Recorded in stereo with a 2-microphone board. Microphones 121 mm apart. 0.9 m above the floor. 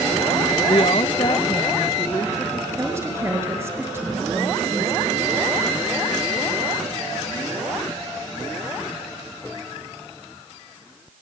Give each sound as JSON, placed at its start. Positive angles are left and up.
{"t": 0.7, "sound": "a woman speaking", "side_deg": 50, "distance_m": 0.5}
{"t": 2.7, "sound": "a woman speaking", "side_deg": -20, "distance_m": 5.5}